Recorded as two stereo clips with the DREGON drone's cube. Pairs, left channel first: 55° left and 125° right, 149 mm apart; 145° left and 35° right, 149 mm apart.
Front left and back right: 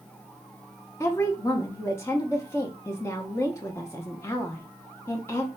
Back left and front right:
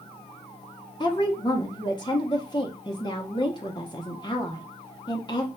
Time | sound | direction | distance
1.0 | a woman speaking | 115° left | 0.6 m